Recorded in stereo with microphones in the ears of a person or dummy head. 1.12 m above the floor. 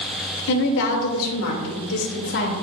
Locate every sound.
0.5 s a woman speaking: 55° left (ahead or behind), 2.5 m; by 2.5 s 60° left (ahead or behind), 2.5 m